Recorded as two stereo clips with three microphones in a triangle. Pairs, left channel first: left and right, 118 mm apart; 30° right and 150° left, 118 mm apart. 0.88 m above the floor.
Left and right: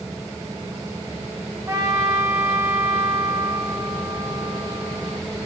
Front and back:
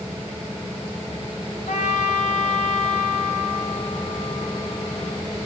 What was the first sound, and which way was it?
A trumpet, 25° right.